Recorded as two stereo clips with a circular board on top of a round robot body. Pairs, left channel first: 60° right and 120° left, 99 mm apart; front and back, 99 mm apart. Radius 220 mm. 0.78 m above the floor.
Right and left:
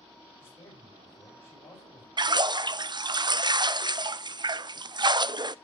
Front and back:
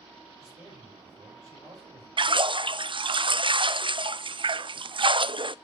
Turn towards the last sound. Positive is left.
turn(degrees=155)